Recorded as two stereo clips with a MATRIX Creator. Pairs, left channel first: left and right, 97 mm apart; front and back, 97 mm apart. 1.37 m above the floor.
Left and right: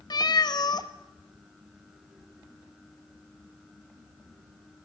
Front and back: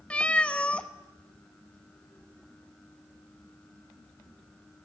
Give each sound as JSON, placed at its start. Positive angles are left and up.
{"t": 0.1, "sound": "a cat meowing", "azimuth_deg": 75, "distance_m": 0.8}